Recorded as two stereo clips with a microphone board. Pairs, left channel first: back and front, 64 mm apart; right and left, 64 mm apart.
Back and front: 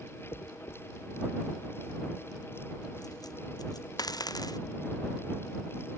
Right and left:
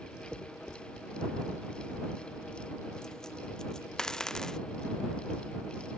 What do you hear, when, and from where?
0.3 s a dropped coin: 170° right